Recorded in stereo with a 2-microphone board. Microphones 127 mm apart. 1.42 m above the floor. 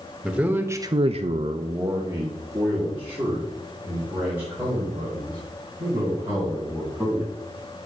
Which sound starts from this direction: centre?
A man speaking, at 0.2 s.